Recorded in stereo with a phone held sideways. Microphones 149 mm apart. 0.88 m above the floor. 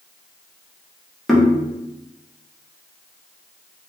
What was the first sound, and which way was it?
Knocking, centre (ahead or behind).